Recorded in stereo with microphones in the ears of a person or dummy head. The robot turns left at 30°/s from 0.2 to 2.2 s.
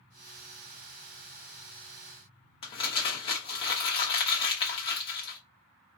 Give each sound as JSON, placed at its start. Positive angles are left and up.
{"t": 2.6, "sound": "crumpling", "side_deg": 30, "distance_m": 1.0}